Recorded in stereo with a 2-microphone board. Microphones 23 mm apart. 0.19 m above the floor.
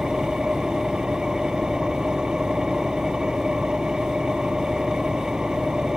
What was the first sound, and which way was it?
An engine running, 40° right (ahead or behind).